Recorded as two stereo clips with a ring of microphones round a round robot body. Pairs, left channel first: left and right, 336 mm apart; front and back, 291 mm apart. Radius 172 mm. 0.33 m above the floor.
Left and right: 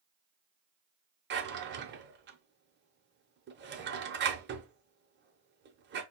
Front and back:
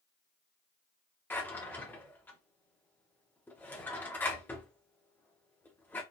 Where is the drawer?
80° right, 0.7 m.